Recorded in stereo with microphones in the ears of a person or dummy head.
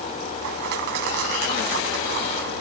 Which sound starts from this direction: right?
Crushing, at 0.4 s.